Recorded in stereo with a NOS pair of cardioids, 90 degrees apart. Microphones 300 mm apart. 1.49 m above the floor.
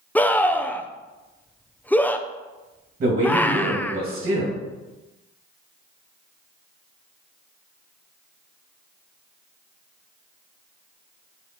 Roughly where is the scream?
Ahead.